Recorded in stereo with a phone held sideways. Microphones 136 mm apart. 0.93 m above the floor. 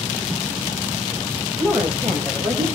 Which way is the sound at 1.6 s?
5° left (ahead or behind).